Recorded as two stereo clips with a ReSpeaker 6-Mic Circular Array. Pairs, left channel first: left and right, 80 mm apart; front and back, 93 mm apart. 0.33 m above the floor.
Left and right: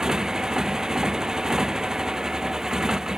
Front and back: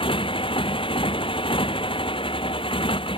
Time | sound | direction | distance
0.0 | a motorcycle | 10° right | ?